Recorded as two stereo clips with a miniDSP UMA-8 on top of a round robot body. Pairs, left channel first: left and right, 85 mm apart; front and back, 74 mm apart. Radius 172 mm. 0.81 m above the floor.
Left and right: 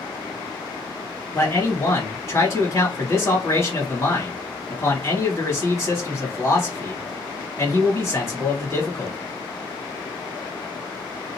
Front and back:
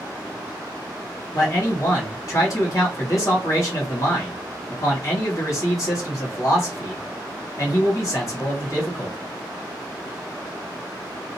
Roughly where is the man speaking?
Ahead left.